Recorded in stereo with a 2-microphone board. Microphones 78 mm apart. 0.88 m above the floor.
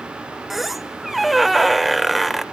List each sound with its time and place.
0.5 s a squeak: centre (ahead or behind), 0.7 m